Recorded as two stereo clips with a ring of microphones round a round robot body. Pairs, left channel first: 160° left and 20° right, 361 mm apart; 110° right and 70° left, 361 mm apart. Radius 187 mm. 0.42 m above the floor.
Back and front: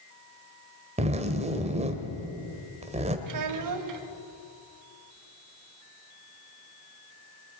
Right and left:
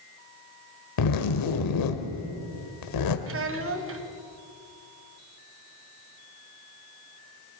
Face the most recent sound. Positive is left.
turn(degrees=15)